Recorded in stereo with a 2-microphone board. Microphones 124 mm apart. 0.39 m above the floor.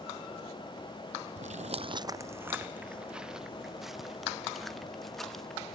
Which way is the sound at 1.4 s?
60° right (ahead or behind).